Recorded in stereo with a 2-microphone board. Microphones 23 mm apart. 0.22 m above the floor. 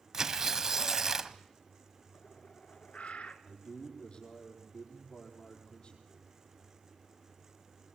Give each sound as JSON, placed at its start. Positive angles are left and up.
{"t": 0.1, "sound": "tearing paper", "side_deg": -20, "distance_m": 0.9}
{"t": 2.1, "sound": "a bird", "side_deg": 65, "distance_m": 1.7}
{"t": 3.5, "sound": "a man speaking", "side_deg": 45, "distance_m": 8.5}